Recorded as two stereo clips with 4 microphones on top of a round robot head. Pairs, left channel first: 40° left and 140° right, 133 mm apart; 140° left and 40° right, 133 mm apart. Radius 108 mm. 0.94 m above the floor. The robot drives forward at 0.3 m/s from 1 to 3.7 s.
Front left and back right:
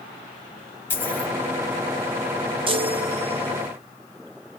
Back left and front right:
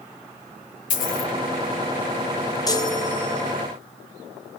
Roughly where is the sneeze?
I don't hear a sneeze.